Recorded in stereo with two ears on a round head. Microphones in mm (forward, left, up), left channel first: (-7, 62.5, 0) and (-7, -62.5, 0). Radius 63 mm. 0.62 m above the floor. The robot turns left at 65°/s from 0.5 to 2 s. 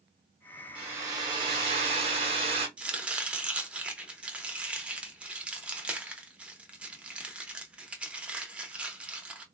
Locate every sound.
0.8 s a hair dryer: 20° right, 1.4 m; by 2.7 s 100° right, 1.4 m
2.8 s chopping: 10° right (ahead or behind), 0.6 m